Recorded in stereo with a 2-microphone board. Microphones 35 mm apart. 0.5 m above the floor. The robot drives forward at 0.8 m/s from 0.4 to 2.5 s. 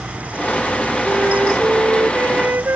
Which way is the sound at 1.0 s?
65° right (ahead or behind).